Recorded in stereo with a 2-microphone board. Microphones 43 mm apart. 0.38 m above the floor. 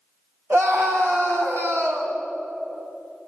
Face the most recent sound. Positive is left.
turn(degrees=-70)  # may be behind; listen again after turning